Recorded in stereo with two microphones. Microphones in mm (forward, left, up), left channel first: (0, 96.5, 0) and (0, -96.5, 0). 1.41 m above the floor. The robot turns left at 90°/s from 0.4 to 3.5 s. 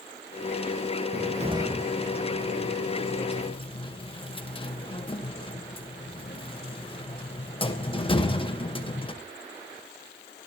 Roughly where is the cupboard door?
Right.